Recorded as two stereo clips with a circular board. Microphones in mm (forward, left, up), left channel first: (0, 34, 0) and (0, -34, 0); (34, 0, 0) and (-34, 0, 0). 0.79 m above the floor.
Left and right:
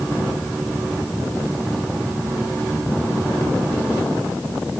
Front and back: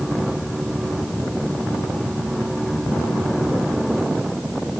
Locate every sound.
Only background noise.